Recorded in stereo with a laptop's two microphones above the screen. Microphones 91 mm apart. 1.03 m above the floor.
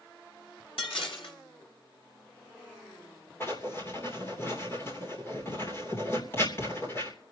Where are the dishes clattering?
75° left (ahead or behind), 2.5 m.